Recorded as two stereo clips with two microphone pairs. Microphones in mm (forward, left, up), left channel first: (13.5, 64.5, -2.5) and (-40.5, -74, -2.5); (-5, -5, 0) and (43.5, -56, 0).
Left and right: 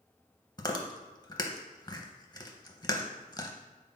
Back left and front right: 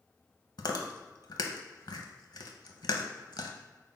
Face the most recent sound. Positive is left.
turn(degrees=130)